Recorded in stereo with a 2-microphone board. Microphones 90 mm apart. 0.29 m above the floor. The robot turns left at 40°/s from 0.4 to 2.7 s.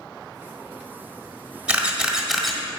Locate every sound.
1.7 s a camera shutter: 10° right (ahead or behind), 1.4 m; by 2.6 s 5° left (ahead or behind), 1.4 m